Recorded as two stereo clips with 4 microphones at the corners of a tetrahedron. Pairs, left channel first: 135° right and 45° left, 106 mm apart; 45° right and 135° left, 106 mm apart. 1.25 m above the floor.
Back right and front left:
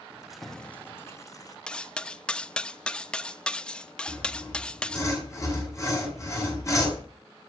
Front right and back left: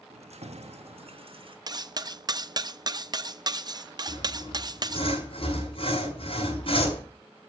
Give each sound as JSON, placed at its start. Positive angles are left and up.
{"t": 0.1, "sound": "keys jangling", "azimuth_deg": 125, "distance_m": 1.4}
{"t": 1.7, "sound": "cutlery clinking", "azimuth_deg": 150, "distance_m": 0.6}
{"t": 4.1, "sound": "sawing", "azimuth_deg": -75, "distance_m": 6.0}